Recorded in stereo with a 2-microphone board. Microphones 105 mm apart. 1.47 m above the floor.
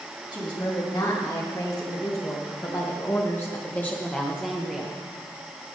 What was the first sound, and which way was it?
A woman speaking, 45° left (ahead or behind).